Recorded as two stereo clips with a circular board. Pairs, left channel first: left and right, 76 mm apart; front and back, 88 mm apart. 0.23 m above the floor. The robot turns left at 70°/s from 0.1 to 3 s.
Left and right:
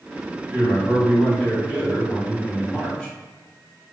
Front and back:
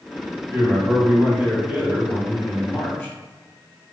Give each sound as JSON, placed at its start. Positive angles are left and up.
{"t": 0.5, "sound": "a man speaking", "azimuth_deg": -150, "distance_m": 1.7}